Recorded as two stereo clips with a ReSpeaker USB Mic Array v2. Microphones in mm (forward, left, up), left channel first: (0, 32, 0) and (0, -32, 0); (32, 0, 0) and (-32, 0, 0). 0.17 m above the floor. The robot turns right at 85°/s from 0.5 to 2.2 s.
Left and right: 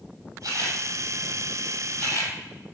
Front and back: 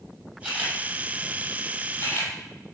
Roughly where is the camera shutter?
Right.